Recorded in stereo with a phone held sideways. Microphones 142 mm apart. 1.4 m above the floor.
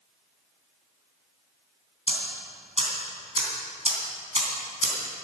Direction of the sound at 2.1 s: 45° right (ahead or behind).